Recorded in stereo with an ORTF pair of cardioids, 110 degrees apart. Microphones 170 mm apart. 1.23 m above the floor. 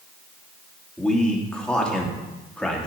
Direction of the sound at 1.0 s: 5° left.